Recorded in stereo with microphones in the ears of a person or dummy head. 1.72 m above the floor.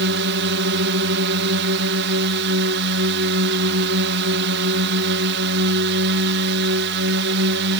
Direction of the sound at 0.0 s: 60° right (ahead or behind).